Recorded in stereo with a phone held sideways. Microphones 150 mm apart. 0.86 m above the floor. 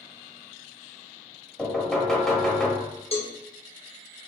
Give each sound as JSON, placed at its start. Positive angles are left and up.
{"t": 1.6, "sound": "knocking", "side_deg": 5, "distance_m": 1.1}
{"t": 3.1, "sound": "a cowbell", "side_deg": 40, "distance_m": 0.7}